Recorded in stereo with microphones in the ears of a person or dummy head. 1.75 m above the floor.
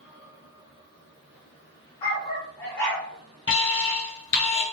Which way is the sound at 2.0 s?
25° left (ahead or behind).